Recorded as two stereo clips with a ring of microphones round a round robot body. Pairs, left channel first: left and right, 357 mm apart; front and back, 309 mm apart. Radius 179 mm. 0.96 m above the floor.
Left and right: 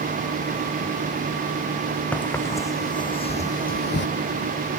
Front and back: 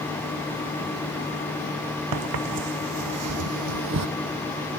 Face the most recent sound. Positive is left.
turn(degrees=150)